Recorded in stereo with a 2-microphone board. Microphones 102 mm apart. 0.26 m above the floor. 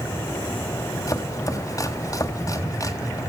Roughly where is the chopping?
Left.